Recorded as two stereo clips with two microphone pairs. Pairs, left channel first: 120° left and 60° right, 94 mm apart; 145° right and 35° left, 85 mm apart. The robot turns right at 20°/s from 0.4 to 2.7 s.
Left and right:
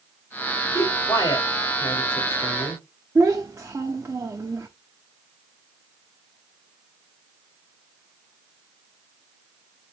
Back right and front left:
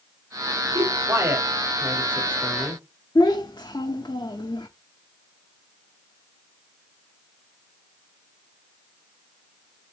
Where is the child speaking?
120° right, 0.6 m.